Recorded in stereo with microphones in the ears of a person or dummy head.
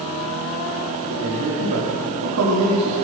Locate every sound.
1.1 s a man speaking: 80° right, 5 m; by 2.9 s 90° right, 4 m